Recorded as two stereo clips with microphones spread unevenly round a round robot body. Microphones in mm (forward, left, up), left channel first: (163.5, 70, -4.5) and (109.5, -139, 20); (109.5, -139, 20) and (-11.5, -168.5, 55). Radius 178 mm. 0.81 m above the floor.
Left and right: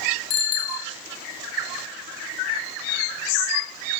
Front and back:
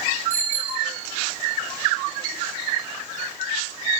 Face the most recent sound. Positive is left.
turn(degrees=95)